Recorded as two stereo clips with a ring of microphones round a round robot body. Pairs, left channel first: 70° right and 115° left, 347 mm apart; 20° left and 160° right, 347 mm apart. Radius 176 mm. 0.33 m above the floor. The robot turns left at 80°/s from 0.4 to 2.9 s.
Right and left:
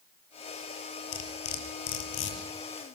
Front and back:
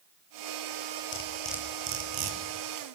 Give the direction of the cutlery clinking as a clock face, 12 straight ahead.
1 o'clock.